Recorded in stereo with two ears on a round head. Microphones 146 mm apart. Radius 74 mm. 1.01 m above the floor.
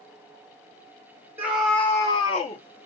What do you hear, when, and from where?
1.4 s a scream: 10° right (ahead or behind), 0.8 m; by 2.6 s 45° left (ahead or behind), 1.1 m